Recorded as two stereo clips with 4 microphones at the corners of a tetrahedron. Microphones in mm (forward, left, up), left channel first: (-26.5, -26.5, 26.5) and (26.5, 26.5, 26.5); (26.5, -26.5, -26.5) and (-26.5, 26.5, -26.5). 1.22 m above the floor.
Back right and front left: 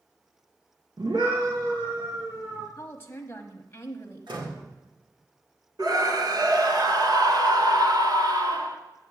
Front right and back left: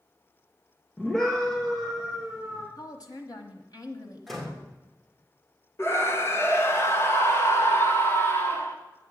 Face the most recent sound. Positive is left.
turn(degrees=15)